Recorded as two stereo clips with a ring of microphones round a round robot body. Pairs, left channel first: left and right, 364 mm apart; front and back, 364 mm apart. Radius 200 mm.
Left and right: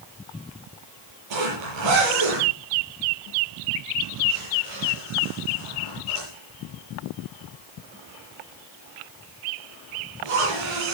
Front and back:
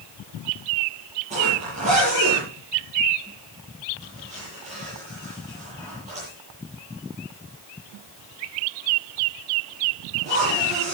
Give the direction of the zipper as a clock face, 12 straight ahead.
4 o'clock.